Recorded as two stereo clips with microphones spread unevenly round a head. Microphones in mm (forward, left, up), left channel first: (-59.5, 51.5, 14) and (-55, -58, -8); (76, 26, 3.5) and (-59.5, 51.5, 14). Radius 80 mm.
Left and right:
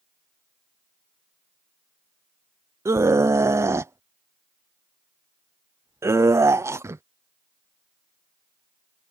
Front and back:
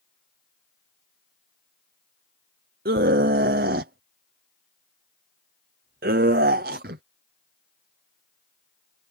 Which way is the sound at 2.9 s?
155° right.